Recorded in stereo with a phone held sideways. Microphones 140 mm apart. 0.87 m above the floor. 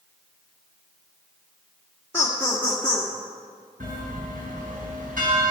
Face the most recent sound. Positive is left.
turn(degrees=-80)